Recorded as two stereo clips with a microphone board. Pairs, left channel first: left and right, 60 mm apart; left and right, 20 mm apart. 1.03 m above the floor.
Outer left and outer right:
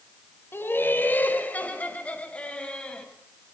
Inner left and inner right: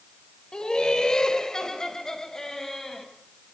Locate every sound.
0.5 s laughter: 35° left (ahead or behind), 4 m; by 3.1 s 15° left (ahead or behind), 6 m